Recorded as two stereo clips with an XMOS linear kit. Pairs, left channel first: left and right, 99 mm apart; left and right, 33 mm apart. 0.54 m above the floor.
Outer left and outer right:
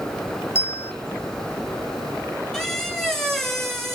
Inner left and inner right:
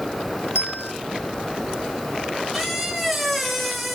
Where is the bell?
75° left (ahead or behind), 0.8 m.